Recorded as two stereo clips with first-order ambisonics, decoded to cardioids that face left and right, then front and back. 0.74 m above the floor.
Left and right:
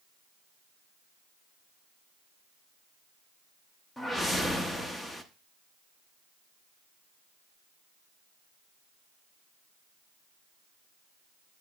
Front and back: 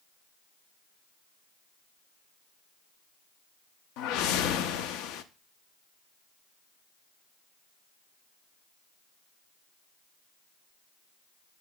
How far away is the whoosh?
About 0.7 m.